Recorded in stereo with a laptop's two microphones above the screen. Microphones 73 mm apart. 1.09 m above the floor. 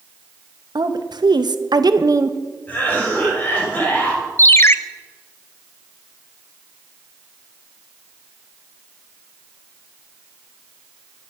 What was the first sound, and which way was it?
A woman speaking, 65° right (ahead or behind).